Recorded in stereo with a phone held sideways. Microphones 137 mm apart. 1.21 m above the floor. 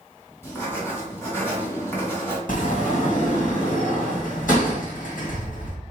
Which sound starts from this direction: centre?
Writing, at 0.4 s.